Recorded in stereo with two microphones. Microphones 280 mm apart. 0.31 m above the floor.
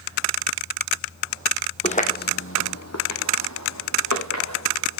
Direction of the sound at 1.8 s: 20° left (ahead or behind).